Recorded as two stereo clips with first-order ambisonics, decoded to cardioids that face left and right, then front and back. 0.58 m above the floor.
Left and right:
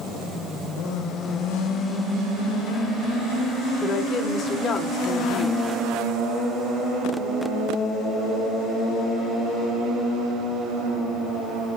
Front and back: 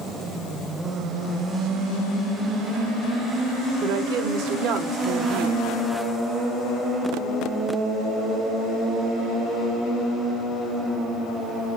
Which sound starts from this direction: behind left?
A woman speaking, at 3.8 s.